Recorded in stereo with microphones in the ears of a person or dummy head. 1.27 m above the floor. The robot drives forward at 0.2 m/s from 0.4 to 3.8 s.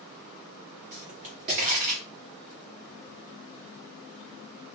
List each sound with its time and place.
0.9 s a pop: 40° right (ahead or behind), 1.0 m; by 2.0 s 45° right (ahead or behind), 0.9 m